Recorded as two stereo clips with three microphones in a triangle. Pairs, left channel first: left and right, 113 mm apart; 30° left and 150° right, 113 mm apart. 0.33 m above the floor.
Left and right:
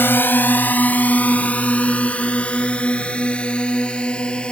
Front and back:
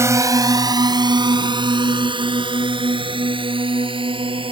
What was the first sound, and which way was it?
A drone, 155° left.